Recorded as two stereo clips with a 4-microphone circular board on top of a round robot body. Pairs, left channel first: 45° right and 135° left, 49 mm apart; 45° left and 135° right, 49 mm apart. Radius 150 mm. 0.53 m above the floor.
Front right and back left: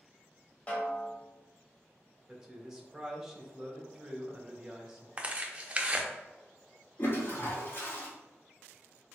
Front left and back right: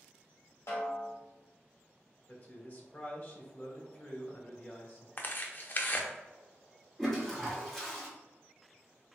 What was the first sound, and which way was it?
A snare drum, 20° left.